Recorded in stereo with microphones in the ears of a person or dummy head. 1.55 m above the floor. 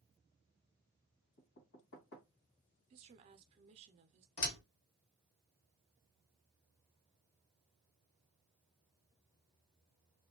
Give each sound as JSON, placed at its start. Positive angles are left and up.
{"t": 1.4, "sound": "knocking", "side_deg": 65, "distance_m": 1.5}
{"t": 2.9, "sound": "a woman speaking", "side_deg": -40, "distance_m": 0.6}
{"t": 4.4, "sound": "a door slam", "side_deg": 65, "distance_m": 1.2}